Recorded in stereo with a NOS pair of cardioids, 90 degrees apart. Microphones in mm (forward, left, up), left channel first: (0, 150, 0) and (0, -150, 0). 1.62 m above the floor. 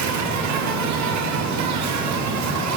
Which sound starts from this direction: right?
An insect, at 0.0 s.